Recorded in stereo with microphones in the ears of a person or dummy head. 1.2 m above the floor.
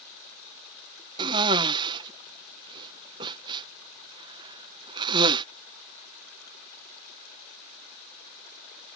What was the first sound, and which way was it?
A cough, 25° right (ahead or behind).